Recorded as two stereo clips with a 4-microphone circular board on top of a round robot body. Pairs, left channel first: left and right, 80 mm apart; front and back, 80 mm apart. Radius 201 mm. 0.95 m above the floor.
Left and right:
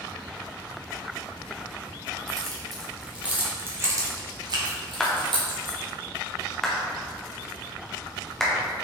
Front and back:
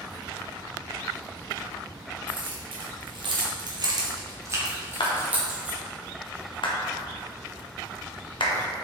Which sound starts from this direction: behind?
Keys jangling, at 2.3 s.